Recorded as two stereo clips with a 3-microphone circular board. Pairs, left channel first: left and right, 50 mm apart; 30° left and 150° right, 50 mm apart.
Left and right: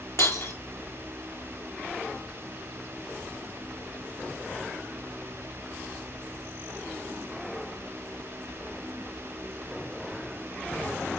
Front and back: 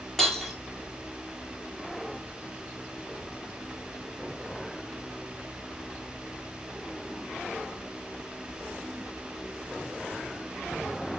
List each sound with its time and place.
0.2 s breaking glass: 115° left, 1.6 m